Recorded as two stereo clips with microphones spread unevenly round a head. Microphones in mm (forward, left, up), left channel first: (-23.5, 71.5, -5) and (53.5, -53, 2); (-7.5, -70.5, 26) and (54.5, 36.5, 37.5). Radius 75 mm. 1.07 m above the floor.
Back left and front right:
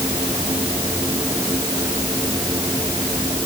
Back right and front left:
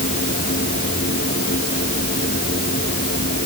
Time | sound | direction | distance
0.0 | a machine running | 130° right | ?